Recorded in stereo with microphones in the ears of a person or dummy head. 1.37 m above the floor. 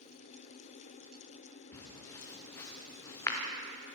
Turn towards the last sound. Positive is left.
turn(degrees=20)  # may be behind; listen again after turning